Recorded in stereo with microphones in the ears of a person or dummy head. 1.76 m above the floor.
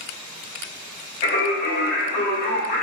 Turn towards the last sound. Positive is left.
turn(degrees=40)  # may be behind; listen again after turning